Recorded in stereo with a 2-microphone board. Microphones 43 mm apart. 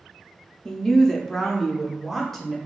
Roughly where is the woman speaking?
Centre.